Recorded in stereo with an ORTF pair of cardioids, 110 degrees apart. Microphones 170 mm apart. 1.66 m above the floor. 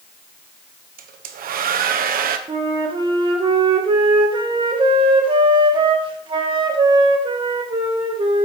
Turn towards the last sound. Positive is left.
turn(degrees=-30)